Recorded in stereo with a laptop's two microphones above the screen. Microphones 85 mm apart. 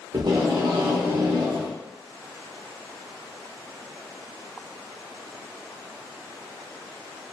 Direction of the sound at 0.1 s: 55° right (ahead or behind).